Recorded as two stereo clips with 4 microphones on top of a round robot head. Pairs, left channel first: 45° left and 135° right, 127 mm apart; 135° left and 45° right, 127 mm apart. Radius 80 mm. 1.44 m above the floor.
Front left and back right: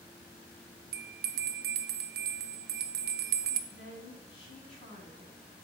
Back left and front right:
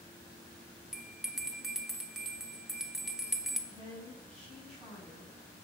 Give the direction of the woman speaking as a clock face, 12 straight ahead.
10 o'clock.